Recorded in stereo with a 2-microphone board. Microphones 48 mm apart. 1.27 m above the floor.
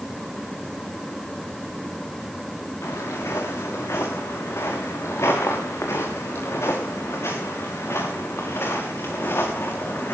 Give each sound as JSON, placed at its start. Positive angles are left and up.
{"t": 2.8, "sound": "footsteps", "side_deg": 80, "distance_m": 6.0}